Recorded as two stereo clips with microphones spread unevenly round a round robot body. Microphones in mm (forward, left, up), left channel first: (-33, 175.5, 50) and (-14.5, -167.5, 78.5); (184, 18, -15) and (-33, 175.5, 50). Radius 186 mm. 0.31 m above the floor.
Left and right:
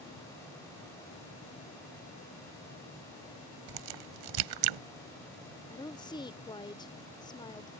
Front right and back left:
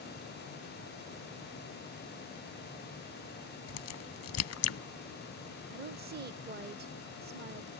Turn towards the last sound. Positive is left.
turn(degrees=130)